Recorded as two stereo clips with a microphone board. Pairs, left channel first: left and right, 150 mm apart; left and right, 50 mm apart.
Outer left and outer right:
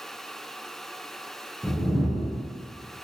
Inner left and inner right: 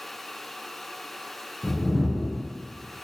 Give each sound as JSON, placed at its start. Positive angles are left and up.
{"t": 1.6, "sound": "a whoosh", "side_deg": 5, "distance_m": 0.7}